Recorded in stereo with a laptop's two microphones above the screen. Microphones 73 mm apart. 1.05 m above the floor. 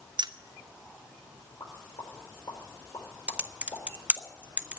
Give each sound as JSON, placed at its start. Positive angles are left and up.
{"t": 0.2, "sound": "keys jangling", "side_deg": -90, "distance_m": 0.7}
{"t": 1.6, "sound": "a pop", "side_deg": 60, "distance_m": 4.5}
{"t": 3.3, "sound": "typing on a keyboard", "side_deg": -20, "distance_m": 0.6}